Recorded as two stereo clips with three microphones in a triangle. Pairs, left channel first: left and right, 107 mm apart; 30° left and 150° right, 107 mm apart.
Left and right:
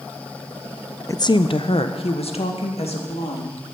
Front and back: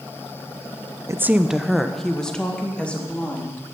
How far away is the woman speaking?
About 0.6 m.